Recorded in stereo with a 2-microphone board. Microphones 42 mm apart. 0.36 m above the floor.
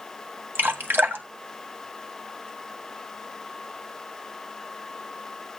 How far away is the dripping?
About 1.6 m.